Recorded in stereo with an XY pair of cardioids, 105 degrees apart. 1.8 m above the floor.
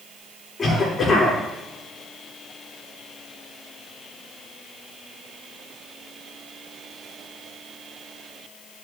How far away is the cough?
About 5 m.